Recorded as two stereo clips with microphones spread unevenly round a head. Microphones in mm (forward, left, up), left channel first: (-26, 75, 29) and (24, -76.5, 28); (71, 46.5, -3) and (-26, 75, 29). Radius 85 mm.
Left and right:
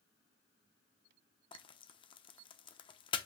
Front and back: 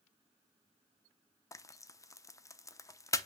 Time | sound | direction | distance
1.5 | frying | 50° left | 0.8 m